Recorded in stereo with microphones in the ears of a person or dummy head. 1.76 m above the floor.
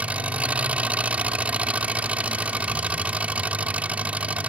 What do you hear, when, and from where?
0.0 s an engine running: 5° right (ahead or behind)